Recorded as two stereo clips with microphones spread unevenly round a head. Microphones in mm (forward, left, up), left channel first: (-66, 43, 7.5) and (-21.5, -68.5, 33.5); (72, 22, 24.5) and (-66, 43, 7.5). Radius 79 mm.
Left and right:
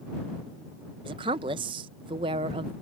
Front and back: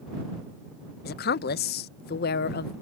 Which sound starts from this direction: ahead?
A woman speaking, at 1.1 s.